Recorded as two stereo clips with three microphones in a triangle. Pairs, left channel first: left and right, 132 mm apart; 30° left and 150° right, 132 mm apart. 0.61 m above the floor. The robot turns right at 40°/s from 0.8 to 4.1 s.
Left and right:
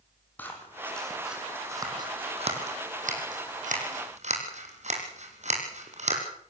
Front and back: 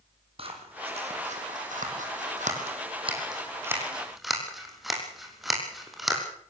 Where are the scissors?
165° left, 5 m; by 6.2 s 60° right, 5 m.